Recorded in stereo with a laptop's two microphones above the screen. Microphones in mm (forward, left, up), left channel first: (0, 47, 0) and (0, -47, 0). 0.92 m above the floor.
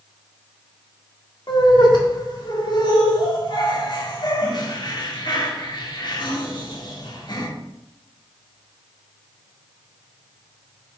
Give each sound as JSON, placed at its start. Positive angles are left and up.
{"t": 1.5, "sound": "laughter", "side_deg": 50, "distance_m": 1.9}